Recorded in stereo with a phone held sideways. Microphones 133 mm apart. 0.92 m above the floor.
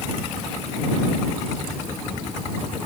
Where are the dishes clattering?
No dishes clattering in this recording.